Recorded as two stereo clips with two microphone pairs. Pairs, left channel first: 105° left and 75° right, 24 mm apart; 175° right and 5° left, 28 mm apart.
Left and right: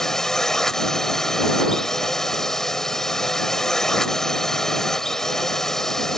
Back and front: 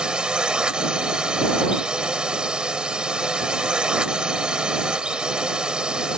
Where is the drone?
45° left.